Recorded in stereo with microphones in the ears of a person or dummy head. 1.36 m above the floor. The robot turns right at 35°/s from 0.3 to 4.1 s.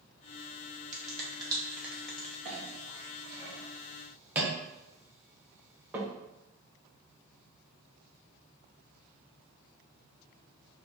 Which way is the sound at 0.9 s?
40° right (ahead or behind).